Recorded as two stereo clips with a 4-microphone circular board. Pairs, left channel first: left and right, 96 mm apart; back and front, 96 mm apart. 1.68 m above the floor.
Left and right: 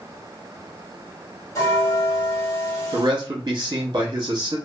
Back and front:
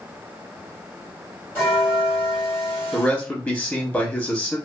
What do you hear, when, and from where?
1.6 s a bell: 120° left, 1.8 m
2.9 s a man speaking: 115° right, 0.8 m